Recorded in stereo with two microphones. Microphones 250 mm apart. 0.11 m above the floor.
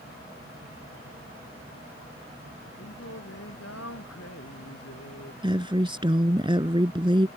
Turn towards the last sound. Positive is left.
turn(degrees=-20)  # may be behind; listen again after turning